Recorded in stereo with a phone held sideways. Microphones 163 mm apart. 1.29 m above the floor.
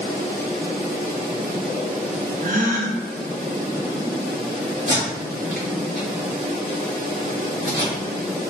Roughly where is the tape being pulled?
Right.